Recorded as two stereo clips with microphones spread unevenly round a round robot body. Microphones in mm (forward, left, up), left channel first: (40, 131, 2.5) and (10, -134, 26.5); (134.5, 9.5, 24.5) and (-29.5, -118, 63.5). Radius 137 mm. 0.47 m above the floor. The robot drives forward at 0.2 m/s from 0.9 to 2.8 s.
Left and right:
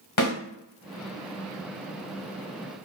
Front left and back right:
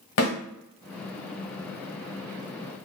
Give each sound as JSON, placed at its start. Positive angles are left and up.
{"t": 0.2, "sound": "a snare drum", "azimuth_deg": 60, "distance_m": 1.5}